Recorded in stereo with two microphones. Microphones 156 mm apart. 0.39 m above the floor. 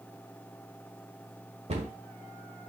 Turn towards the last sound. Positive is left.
turn(degrees=-45)  # may be behind; listen again after turning